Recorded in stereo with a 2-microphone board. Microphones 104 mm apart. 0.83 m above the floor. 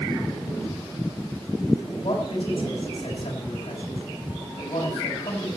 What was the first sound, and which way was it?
A man speaking, 70° left (ahead or behind).